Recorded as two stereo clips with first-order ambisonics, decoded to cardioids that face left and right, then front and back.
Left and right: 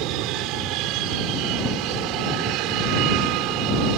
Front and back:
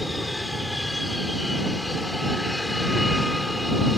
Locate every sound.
0.0 s an aircraft: 85° right